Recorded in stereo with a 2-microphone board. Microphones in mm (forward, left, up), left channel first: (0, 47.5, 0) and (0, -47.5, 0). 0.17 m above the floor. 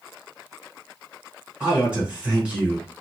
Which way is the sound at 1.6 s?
10° right (ahead or behind).